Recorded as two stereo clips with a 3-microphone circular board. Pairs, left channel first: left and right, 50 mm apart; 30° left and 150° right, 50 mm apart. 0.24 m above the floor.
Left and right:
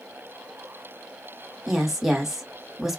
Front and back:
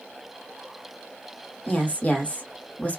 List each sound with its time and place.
1.7 s a woman speaking: 10° right, 1.4 m